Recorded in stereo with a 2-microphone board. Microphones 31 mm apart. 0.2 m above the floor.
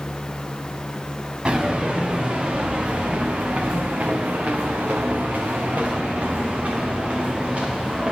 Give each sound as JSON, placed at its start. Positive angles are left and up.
{"t": 1.4, "sound": "footsteps", "side_deg": -40, "distance_m": 2.5}